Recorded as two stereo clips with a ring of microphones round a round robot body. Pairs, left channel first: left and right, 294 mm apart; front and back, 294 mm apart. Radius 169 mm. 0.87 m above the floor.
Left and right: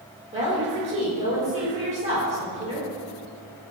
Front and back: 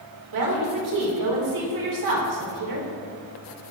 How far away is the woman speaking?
About 3 m.